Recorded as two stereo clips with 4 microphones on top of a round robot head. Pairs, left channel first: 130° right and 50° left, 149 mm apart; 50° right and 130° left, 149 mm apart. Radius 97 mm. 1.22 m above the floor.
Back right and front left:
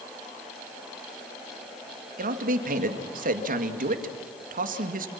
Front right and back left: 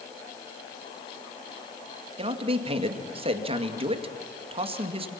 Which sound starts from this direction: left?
A man speaking, at 2.2 s.